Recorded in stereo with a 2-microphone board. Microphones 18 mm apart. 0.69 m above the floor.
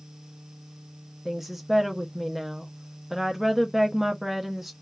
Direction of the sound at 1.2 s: 10° right (ahead or behind).